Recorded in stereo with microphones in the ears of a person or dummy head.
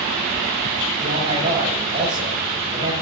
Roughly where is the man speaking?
Right.